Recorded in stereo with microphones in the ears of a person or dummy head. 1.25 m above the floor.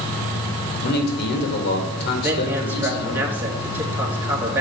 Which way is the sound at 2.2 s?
10° right (ahead or behind).